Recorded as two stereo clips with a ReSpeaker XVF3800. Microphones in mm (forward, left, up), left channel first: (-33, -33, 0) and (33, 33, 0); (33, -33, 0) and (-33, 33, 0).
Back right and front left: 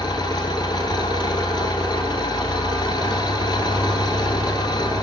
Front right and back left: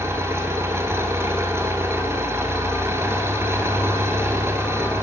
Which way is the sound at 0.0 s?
170° right.